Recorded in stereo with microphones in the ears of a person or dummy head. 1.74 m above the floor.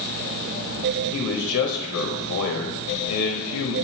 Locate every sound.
1.1 s a man speaking: 80° left, 1.1 m